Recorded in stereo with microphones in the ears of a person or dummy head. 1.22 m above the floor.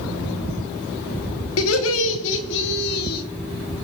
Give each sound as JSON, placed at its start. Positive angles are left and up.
{"t": 1.6, "sound": "laughter", "side_deg": 85, "distance_m": 2.0}